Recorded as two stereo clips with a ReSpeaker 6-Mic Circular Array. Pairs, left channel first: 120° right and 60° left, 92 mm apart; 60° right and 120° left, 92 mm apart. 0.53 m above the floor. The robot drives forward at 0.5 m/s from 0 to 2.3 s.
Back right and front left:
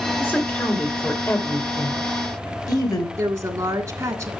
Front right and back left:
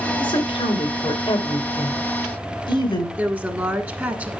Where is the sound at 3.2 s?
75° left, 1.4 m.